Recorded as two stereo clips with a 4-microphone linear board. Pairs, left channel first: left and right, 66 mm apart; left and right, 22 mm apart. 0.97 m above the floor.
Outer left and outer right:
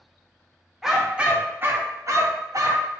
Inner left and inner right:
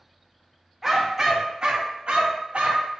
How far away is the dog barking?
About 0.9 m.